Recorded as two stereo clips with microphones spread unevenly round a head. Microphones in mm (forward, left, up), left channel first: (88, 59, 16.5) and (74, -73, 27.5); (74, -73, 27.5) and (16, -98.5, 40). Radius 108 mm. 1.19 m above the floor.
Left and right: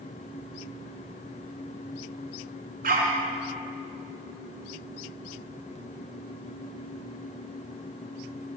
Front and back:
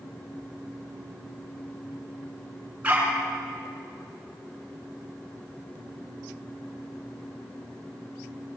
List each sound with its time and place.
2.8 s a dog barking: 90° right, 6.5 m